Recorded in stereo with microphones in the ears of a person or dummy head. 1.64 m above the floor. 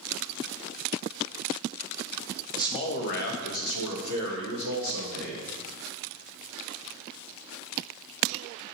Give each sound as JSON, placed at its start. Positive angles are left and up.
{"t": 2.5, "sound": "a man speaking", "side_deg": 20, "distance_m": 0.6}